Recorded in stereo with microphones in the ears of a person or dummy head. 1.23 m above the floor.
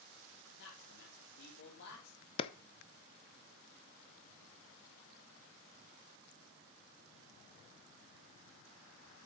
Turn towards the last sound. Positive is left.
turn(degrees=35)  # may be behind; listen again after turning